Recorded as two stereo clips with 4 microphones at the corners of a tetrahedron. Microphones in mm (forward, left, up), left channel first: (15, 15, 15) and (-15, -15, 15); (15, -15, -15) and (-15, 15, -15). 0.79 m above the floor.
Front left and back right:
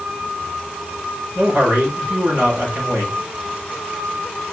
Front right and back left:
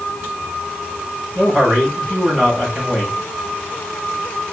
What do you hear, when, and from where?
1.4 s a man speaking: 155° right, 3.5 m